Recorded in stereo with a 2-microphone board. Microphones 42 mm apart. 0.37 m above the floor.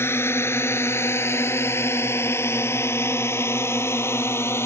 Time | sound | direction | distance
0.0 | a drone | 70° left (ahead or behind) | ?